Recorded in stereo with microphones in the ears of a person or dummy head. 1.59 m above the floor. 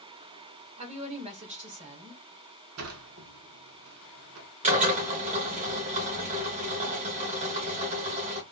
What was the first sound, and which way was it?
A woman speaking, 30° right (ahead or behind).